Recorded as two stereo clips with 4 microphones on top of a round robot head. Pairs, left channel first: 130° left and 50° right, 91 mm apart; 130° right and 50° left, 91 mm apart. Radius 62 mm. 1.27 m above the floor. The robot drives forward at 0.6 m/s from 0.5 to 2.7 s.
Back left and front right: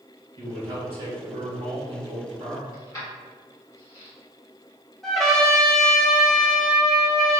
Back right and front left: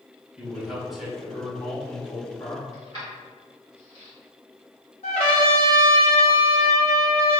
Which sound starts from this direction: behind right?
A trumpet, at 5.0 s.